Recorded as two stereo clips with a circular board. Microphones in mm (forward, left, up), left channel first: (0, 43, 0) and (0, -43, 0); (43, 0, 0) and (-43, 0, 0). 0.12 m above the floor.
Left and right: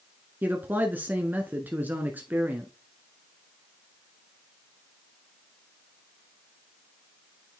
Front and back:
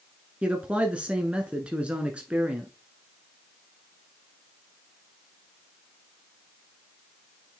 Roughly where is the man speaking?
Behind right.